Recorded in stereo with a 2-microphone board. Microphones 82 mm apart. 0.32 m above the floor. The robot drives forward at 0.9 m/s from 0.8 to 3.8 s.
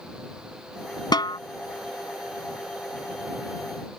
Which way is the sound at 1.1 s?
65° left (ahead or behind).